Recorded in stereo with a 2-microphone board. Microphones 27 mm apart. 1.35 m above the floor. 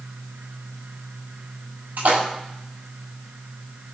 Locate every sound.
2.0 s a splash: 85° right, 6 m